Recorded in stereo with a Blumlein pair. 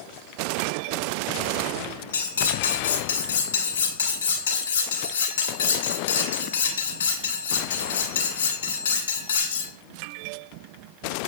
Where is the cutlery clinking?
65° left, 2.0 m.